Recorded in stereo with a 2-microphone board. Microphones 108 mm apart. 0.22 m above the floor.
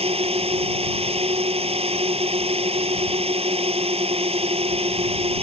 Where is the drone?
65° right (ahead or behind).